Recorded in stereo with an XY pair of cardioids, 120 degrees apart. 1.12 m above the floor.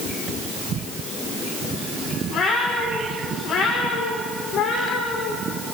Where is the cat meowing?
65° left, 7 m.